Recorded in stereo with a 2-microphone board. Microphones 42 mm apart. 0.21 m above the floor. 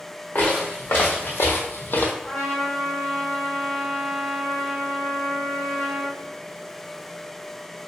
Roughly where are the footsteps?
Left.